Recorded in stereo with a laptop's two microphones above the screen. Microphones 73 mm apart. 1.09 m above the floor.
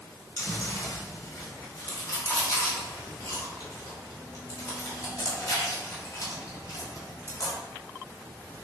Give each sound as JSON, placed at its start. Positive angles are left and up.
{"t": 0.4, "sound": "chewing", "side_deg": 45, "distance_m": 3.5}